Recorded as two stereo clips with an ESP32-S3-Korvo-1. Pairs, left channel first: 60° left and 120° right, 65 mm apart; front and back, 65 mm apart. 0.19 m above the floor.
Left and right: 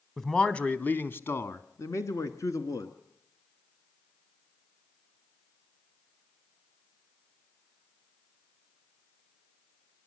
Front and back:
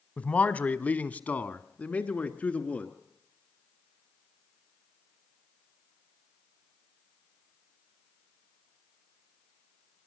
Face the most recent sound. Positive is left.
turn(degrees=65)